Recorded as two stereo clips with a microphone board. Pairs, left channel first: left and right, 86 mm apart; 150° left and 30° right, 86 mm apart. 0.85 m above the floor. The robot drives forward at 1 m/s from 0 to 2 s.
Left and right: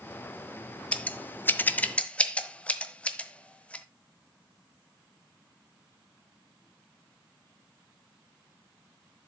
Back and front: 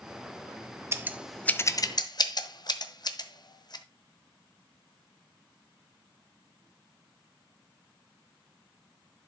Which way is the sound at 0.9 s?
20° left.